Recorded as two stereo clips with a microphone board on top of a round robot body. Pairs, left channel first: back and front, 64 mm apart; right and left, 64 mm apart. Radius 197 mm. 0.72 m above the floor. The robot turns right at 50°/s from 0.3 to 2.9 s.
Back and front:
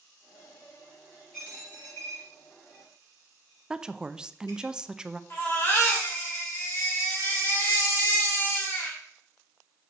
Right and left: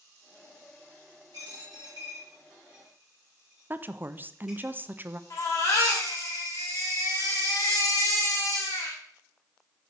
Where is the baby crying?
125° right, 2.5 m.